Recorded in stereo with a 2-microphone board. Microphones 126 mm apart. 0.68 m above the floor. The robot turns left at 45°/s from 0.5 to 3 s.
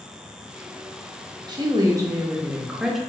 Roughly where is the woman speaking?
Right.